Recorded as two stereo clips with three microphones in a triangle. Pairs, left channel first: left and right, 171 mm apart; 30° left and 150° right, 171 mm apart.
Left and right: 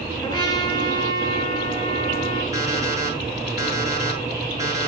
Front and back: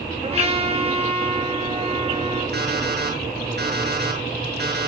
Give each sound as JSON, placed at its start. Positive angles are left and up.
{"t": 0.2, "sound": "a trumpet", "azimuth_deg": 160, "distance_m": 9.0}
{"t": 2.5, "sound": "an alarm clock", "azimuth_deg": -160, "distance_m": 8.0}